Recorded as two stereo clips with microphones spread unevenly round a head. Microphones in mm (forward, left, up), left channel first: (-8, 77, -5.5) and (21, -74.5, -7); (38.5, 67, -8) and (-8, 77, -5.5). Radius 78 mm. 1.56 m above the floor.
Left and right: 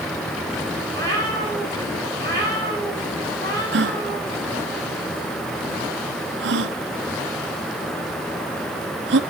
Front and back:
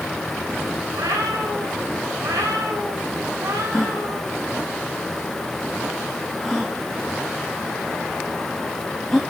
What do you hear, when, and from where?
0.9 s a cat meowing: 175° left, 7.5 m
3.7 s a gasp: 100° right, 0.9 m